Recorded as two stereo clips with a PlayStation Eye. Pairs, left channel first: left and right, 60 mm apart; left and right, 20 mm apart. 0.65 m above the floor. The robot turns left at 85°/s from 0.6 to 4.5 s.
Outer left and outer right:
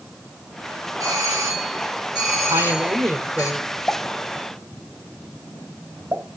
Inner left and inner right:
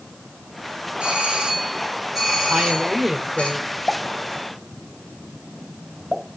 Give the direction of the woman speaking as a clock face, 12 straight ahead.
3 o'clock.